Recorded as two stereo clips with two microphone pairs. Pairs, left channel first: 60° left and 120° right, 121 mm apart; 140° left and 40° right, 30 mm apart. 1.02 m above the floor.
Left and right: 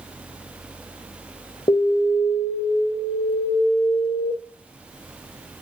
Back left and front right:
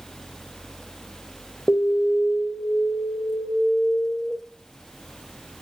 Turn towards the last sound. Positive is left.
turn(degrees=105)